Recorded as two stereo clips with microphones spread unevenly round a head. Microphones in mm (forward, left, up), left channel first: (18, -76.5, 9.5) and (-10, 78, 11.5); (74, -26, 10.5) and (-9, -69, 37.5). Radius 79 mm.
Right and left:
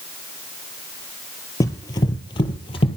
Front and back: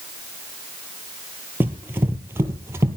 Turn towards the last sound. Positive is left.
turn(degrees=-125)